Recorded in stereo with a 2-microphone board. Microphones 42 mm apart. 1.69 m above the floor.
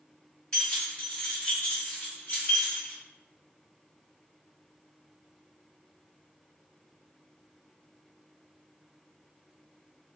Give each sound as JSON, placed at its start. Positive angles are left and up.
{"t": 0.5, "sound": "keys jangling", "side_deg": 25, "distance_m": 1.9}